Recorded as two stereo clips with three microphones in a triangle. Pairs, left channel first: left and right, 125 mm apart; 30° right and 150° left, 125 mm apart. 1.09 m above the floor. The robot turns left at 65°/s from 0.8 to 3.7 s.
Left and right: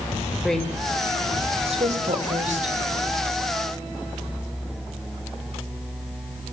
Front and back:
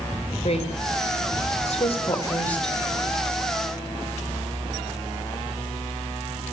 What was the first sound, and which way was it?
A woman speaking, 5° left.